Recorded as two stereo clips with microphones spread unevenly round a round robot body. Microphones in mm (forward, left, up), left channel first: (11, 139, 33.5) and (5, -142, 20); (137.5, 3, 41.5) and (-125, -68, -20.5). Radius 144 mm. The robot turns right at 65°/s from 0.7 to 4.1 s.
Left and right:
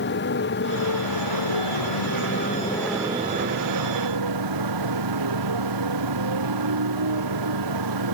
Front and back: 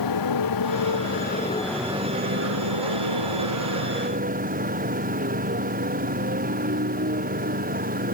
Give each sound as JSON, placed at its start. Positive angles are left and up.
{"t": 0.0, "sound": "a motorcycle", "azimuth_deg": 35}